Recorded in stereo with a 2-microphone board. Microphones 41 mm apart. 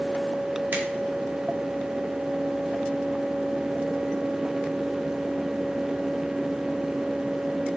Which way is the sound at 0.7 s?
55° right (ahead or behind).